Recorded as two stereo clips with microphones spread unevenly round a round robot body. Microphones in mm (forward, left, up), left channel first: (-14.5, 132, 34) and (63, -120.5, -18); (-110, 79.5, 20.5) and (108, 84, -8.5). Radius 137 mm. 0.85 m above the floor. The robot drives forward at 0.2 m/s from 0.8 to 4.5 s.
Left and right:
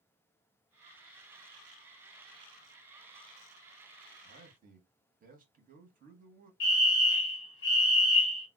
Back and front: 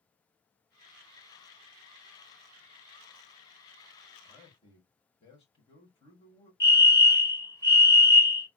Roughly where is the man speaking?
Right.